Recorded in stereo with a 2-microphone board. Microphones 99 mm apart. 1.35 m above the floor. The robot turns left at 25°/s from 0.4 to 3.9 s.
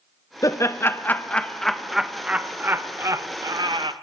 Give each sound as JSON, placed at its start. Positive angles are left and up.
{"t": 0.4, "sound": "laughter", "side_deg": 35, "distance_m": 1.0}